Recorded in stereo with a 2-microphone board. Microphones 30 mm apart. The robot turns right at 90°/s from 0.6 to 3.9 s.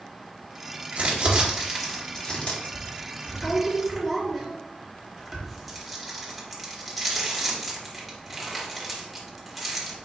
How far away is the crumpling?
About 1.1 m.